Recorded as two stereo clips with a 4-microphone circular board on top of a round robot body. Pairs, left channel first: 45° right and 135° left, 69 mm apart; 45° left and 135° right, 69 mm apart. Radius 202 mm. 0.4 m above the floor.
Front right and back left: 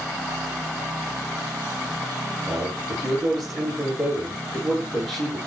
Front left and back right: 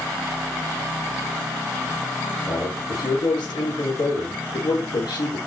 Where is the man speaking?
40° left, 10 m.